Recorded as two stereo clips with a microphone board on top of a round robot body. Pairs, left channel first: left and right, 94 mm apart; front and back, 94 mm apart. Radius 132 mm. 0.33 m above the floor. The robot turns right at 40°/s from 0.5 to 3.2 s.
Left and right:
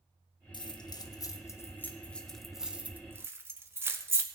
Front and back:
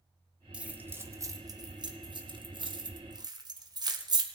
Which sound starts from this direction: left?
Keys jangling, at 0.5 s.